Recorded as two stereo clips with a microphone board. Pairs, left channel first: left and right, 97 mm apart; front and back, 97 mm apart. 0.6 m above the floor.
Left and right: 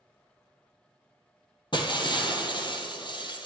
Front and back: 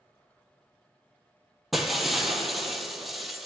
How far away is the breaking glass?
About 0.9 m.